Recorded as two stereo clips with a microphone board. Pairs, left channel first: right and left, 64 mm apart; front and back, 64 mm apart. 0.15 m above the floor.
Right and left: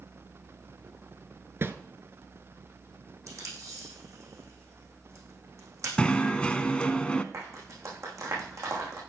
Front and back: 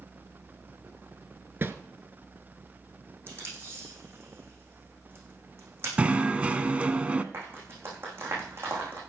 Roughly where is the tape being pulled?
Behind left.